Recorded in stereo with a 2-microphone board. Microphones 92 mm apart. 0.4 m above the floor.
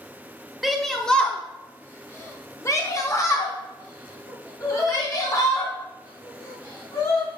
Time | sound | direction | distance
0.6 | a shout | centre (ahead or behind) | 0.8 m